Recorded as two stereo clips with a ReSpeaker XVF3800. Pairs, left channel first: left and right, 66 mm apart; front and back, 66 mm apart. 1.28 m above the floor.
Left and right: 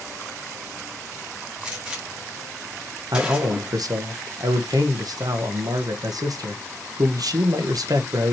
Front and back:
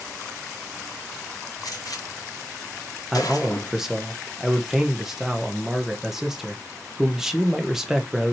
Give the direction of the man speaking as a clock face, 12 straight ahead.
3 o'clock.